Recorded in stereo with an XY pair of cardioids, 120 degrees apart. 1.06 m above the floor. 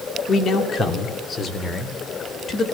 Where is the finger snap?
No finger snap in this recording.